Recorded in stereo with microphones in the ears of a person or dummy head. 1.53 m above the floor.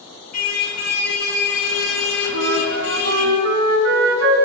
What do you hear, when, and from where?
0.3 s a car horn: 50° left (ahead or behind), 4.5 m; by 3.3 s 80° left, 4.5 m
2.3 s a flute: 70° right (ahead or behind), 3.5 m